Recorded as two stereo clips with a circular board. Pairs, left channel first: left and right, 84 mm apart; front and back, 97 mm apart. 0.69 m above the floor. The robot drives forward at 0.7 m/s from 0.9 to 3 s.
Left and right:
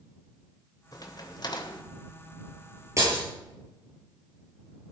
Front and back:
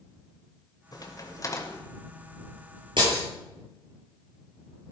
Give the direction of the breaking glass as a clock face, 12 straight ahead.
5 o'clock.